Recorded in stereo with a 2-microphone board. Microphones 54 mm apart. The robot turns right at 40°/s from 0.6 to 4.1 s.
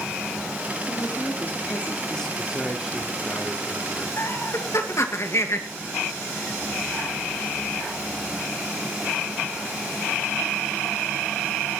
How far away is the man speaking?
About 3 m.